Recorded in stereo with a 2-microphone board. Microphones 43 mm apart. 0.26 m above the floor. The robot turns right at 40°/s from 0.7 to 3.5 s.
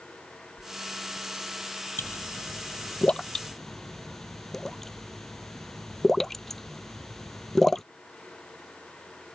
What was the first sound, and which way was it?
A whoosh, 20° right (ahead or behind).